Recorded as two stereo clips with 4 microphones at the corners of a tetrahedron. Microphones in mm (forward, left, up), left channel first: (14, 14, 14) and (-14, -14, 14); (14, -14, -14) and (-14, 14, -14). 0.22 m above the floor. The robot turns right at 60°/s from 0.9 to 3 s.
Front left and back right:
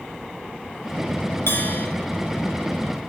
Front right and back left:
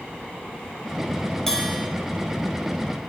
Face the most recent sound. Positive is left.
turn(degrees=125)